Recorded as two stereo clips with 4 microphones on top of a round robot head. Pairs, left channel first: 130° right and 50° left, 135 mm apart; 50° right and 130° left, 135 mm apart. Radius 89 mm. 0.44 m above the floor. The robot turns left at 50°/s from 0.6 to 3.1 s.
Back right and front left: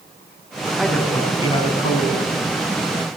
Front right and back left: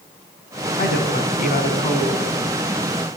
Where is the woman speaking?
40° right, 4 m; by 2.3 s 120° right, 4 m.